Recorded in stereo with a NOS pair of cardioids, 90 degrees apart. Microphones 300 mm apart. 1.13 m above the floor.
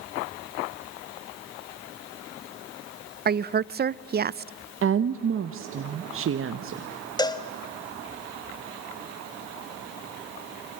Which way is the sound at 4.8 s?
45° right.